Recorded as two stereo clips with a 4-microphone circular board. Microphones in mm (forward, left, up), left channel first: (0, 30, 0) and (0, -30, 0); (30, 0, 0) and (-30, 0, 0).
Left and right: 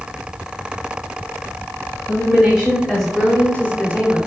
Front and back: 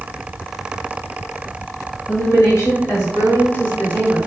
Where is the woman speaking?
20° right, 2 m; by 4.2 s 70° left, 1.6 m.